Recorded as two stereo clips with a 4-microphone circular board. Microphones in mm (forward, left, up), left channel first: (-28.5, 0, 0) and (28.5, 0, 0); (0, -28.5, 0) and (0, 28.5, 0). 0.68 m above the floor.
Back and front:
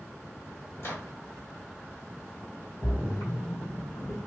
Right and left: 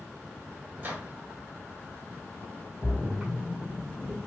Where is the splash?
165° left, 1.8 m.